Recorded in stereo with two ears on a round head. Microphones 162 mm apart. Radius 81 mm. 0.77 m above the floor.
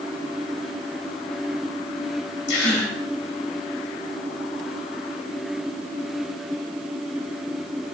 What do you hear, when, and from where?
2.5 s a gasp: 75° left (ahead or behind), 4.5 m